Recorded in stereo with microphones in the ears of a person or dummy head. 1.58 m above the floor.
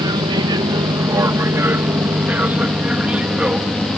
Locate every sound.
0.0 s an aircraft: 20° right (ahead or behind); by 4.0 s 5° right (ahead or behind)